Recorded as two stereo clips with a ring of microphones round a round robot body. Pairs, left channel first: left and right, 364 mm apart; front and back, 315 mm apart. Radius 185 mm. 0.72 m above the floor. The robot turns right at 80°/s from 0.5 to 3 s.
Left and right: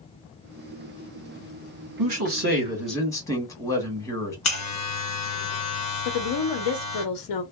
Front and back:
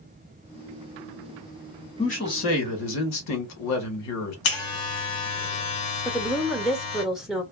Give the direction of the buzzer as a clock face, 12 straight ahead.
11 o'clock.